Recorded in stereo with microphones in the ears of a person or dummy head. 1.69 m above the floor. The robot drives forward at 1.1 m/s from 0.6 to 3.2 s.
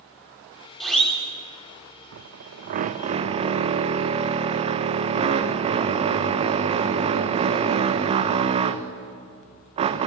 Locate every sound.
0.8 s a siren: centre (ahead or behind), 6 m; by 1.2 s 5° left (ahead or behind), 5.5 m
2.1 s a drill: 60° right (ahead or behind), 0.8 m; by 10.1 s 30° right (ahead or behind), 1.4 m